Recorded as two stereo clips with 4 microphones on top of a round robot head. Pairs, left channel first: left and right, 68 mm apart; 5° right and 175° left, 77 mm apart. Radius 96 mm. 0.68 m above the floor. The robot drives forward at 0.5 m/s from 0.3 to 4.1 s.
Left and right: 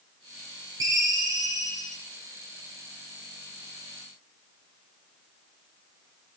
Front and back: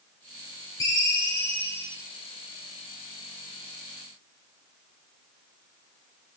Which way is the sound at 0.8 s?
50° right.